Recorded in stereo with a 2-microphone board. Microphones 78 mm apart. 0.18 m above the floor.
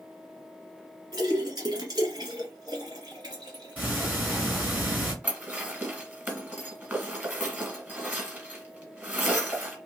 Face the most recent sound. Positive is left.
turn(degrees=-20)  # may be behind; listen again after turning